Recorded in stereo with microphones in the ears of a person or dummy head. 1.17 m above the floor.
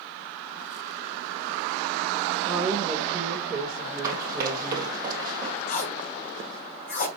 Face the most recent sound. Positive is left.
turn(degrees=55)  # may be behind; listen again after turning